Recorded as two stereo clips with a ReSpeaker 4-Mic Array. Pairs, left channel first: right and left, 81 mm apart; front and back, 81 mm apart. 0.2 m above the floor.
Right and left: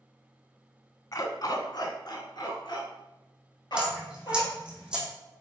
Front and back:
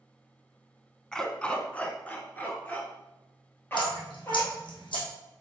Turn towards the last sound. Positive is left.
turn(degrees=10)